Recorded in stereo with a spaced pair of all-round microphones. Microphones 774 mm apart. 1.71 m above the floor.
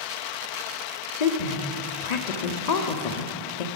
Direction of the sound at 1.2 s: 60° left (ahead or behind).